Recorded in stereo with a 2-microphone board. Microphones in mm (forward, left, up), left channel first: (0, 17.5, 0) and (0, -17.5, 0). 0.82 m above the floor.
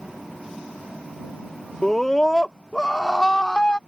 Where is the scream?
10° left (ahead or behind); by 3.8 s 30° left (ahead or behind).